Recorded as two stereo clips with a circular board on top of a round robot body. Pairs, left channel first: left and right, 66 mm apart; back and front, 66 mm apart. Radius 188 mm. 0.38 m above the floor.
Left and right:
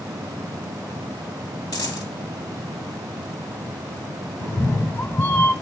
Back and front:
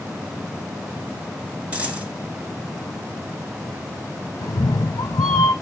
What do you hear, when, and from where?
1.7 s a dropped coin: 70° left, 2.5 m
4.4 s a cat meowing: 150° left, 0.6 m